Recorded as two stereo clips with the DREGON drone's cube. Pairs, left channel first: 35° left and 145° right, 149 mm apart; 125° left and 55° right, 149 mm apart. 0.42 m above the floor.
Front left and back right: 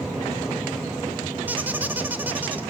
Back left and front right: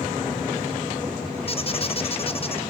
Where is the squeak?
140° left, 0.5 m.